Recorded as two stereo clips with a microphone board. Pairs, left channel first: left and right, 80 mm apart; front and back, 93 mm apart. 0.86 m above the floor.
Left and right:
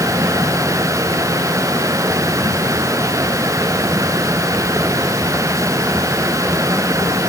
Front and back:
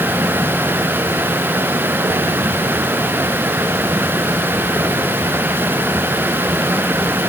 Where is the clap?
No clap in this recording.